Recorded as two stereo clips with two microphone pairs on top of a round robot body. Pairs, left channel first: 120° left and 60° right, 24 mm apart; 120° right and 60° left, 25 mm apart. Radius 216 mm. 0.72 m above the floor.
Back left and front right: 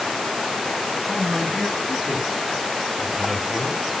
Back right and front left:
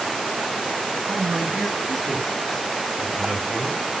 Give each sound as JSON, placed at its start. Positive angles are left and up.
{"t": 1.1, "sound": "a man speaking", "azimuth_deg": 40, "distance_m": 9.5}